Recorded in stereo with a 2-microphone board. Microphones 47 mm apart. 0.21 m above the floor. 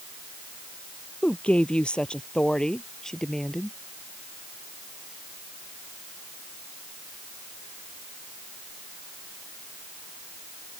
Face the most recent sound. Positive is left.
turn(degrees=10)  # may be behind; listen again after turning